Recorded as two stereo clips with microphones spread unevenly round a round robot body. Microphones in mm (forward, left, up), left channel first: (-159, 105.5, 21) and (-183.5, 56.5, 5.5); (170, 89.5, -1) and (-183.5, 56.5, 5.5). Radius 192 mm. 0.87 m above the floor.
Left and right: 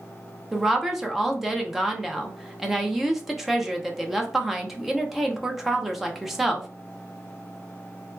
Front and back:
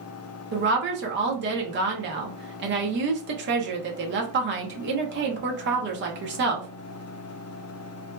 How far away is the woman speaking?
About 0.7 m.